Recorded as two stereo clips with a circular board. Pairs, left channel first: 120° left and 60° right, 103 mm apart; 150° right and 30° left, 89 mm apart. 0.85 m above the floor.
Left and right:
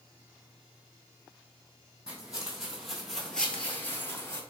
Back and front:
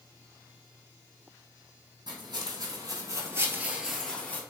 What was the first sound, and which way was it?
Footsteps, 20° left.